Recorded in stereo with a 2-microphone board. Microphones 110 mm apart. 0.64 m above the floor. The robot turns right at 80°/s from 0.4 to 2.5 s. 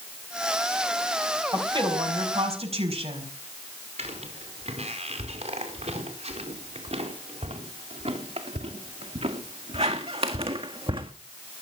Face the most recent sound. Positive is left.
turn(degrees=-55)  # may be behind; listen again after turning